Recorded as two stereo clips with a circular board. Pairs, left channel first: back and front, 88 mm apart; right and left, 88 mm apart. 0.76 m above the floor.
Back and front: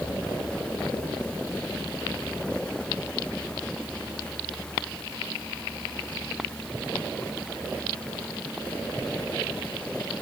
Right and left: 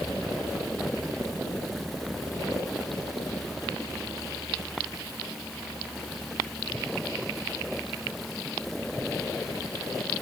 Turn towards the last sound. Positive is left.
No sound to turn to.